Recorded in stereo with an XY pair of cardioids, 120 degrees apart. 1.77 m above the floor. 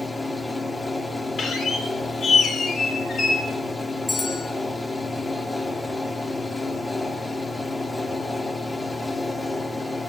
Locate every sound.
0.0 s a fan: 15° left, 1.2 m
1.4 s a squeak: 45° left, 3 m
4.1 s a bell: 20° left, 3.5 m